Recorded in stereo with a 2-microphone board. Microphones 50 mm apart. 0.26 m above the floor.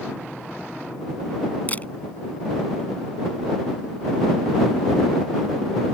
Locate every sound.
1.7 s a camera shutter: 30° left (ahead or behind)